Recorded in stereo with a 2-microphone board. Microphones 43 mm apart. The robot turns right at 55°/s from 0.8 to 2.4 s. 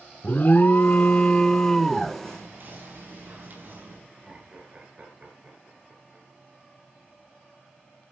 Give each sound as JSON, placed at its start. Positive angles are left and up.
{"t": 0.2, "sound": "an alarm", "azimuth_deg": 110, "distance_m": 0.7}
{"t": 2.2, "sound": "whispering", "side_deg": -60, "distance_m": 5.5}
{"t": 4.1, "sound": "laughter", "side_deg": -35, "distance_m": 7.5}